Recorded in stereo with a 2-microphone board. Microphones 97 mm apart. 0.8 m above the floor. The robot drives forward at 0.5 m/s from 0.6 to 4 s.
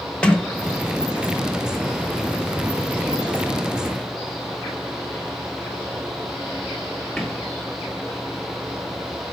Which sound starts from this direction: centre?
A sliding door, at 0.2 s.